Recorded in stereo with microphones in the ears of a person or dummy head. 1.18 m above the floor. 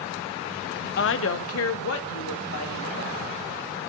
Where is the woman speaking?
50° left (ahead or behind), 0.5 m; by 3.8 s 75° left (ahead or behind), 3.5 m.